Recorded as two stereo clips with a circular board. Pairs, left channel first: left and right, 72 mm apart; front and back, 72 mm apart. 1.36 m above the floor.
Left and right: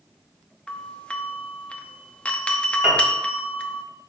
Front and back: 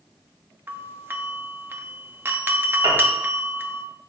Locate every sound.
0.7 s a doorbell: 150° left, 0.8 m
2.8 s a piano: 170° right, 3 m